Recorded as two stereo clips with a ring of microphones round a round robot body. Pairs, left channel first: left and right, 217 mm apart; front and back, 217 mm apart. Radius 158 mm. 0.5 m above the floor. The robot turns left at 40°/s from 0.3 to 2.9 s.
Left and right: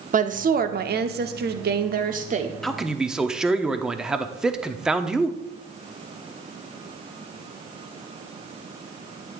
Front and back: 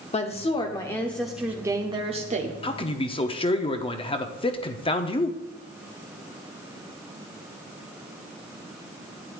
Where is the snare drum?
No snare drum in this recording.